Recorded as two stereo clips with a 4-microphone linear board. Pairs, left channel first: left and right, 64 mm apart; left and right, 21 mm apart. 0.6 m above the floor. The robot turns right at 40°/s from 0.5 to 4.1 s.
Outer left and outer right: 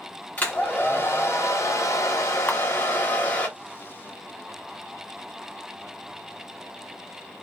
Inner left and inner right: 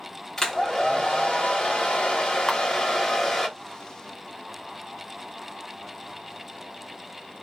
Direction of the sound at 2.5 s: 30° left (ahead or behind).